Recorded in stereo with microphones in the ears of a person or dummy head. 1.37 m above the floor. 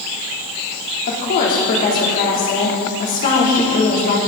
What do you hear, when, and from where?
1.1 s a woman speaking: 50° left (ahead or behind), 4 m